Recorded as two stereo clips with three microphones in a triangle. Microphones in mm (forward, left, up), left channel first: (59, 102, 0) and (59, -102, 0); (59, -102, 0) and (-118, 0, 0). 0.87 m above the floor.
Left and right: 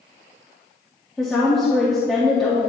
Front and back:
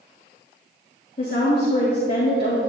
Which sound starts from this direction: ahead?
A woman speaking, at 1.2 s.